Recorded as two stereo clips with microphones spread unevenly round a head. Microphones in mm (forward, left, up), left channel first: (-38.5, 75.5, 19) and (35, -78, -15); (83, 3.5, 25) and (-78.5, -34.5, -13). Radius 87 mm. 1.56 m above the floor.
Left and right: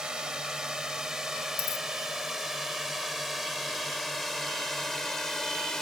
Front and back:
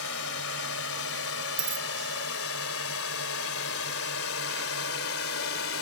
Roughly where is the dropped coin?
Behind.